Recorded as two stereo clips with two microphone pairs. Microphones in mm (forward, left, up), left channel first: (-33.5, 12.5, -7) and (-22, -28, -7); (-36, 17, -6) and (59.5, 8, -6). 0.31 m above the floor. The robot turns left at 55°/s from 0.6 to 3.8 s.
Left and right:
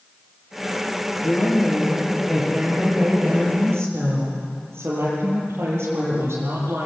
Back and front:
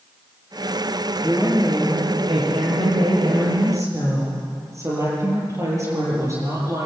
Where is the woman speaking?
80° left, 9 m; by 6.9 s 60° right, 9 m.